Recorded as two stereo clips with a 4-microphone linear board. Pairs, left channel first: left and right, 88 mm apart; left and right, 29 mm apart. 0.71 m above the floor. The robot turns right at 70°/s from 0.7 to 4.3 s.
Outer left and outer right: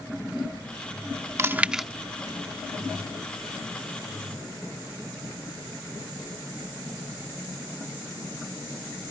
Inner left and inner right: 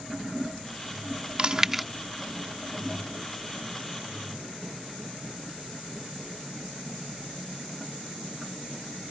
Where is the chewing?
30° right (ahead or behind); by 1.9 s centre (ahead or behind).